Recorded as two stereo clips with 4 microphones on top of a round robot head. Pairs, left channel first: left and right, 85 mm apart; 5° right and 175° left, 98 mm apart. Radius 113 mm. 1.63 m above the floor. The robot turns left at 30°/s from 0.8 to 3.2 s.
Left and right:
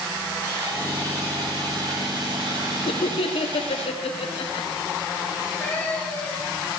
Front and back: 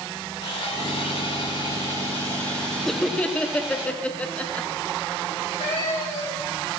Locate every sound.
0.4 s sawing: 35° right, 8 m; by 3.9 s 105° right, 8 m
2.9 s laughter: 85° left, 1.3 m; by 4.7 s 70° left, 1.3 m
5.3 s a cat meowing: 20° left, 3.5 m